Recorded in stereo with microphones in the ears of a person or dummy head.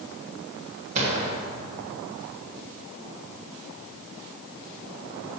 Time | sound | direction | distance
0.9 | a gunshot | 30° right (ahead or behind) | 1.3 m